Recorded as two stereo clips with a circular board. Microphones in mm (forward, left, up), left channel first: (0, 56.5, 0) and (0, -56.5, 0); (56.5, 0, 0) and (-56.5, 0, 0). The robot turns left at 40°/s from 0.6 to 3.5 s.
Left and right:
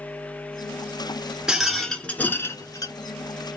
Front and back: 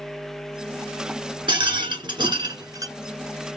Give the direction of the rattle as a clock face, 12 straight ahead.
6 o'clock.